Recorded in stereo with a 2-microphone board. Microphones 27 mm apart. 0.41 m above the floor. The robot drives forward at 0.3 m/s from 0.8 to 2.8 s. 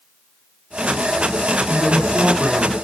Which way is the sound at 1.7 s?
30° right (ahead or behind).